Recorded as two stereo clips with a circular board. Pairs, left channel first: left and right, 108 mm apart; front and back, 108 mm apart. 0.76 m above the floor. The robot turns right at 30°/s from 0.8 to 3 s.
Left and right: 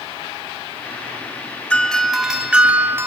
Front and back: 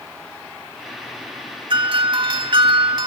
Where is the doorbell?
170° left, 2 m; by 3.1 s 155° right, 2 m.